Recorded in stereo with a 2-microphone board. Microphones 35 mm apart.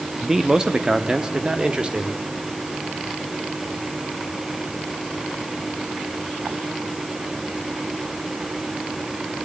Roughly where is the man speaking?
Centre.